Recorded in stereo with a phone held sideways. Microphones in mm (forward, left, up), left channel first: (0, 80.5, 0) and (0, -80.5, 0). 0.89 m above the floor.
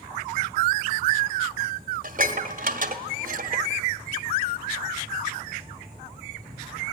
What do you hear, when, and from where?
2.0 s dishes clattering: 55° right (ahead or behind), 1.6 m